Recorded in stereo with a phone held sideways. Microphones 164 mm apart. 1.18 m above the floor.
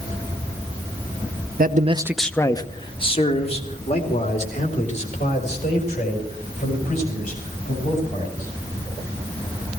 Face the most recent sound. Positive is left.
turn(degrees=50)  # may be behind; listen again after turning